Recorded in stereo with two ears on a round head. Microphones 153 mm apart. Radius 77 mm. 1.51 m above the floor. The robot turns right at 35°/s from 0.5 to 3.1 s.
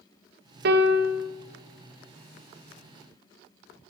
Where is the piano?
65° right (ahead or behind), 1.0 m; by 1.3 s 90° right, 1.0 m.